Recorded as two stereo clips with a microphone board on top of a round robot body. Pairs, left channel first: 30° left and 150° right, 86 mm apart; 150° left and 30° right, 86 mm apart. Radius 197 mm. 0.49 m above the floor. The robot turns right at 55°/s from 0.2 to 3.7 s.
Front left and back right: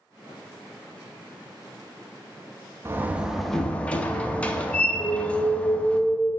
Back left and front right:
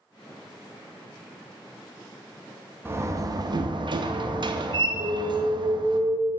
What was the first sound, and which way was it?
A door slam, 90° right.